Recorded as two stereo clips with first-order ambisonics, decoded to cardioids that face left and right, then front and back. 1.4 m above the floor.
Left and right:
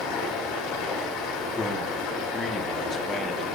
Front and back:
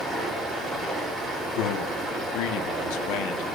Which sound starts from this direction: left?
Running water, at 0.0 s.